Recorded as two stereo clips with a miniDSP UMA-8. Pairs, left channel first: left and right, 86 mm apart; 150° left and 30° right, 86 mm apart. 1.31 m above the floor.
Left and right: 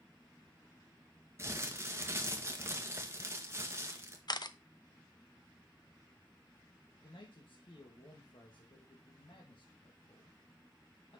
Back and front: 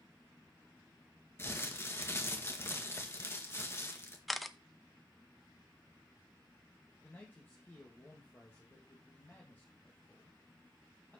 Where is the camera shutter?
60° left, 0.6 m.